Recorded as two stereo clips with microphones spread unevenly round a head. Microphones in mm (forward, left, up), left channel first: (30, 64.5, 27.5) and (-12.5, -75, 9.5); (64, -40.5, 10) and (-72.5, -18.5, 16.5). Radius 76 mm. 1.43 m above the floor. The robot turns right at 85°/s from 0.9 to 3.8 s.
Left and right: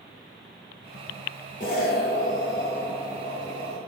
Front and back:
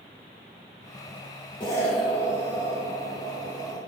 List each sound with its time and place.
1.6 s an explosion: 50° left, 0.8 m; by 3.8 s 125° right, 0.8 m